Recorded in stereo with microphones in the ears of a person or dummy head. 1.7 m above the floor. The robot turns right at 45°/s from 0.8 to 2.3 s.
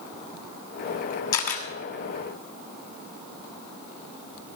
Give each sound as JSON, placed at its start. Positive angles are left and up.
{"t": 1.3, "sound": "a camera shutter", "side_deg": 55, "distance_m": 3.0}